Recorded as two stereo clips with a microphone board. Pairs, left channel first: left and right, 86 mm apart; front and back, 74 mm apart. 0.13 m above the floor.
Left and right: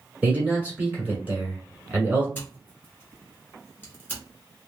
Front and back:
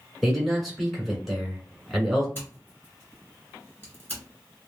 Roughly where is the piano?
No piano in this recording.